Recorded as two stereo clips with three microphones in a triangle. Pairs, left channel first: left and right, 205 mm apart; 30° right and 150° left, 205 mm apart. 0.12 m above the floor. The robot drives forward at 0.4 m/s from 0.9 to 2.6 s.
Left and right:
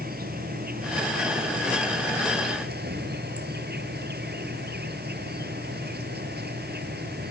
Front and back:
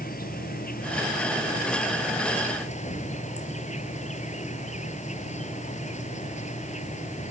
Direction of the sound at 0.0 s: 60° right.